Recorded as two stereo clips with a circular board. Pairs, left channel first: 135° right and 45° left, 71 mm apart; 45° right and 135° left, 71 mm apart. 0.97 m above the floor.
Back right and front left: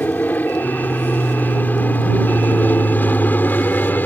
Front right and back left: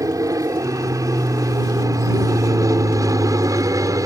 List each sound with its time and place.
0.0 s an aircraft: 160° left; by 4.1 s 165° left